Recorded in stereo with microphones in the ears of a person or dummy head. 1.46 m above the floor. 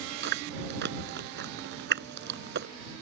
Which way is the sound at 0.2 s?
65° right (ahead or behind).